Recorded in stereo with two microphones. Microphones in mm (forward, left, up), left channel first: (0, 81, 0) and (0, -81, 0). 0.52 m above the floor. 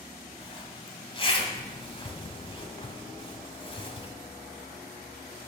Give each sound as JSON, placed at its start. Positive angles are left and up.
{"t": 0.4, "sound": "a zipper", "side_deg": 30, "distance_m": 1.3}